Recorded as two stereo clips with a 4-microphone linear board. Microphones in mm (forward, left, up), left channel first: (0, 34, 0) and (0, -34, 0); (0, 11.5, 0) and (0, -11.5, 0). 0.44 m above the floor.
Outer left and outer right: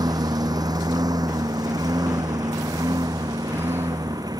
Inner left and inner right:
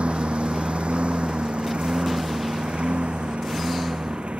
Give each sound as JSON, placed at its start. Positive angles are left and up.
{"t": 0.0, "sound": "a lawn mower", "side_deg": -70}